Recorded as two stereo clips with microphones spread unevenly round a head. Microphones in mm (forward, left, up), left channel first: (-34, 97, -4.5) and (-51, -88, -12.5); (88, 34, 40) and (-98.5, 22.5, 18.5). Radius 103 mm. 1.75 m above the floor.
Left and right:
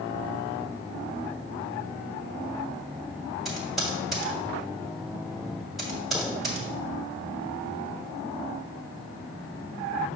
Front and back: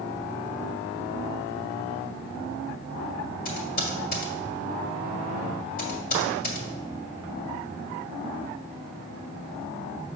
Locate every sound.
3.5 s typing on a keyboard: 5° right, 2 m